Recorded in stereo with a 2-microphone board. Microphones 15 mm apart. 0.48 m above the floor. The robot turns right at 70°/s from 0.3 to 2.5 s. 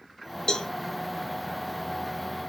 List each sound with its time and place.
0.5 s a cowbell: 65° left (ahead or behind), 0.5 m; by 0.7 s 70° left (ahead or behind), 0.5 m